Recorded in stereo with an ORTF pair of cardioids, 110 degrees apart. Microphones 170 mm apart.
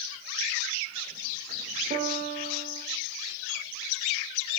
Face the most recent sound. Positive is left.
turn(degrees=-50)